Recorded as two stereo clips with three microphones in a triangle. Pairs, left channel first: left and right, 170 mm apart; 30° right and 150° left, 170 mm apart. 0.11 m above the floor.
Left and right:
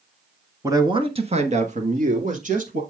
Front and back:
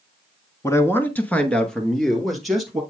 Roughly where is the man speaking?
Ahead right.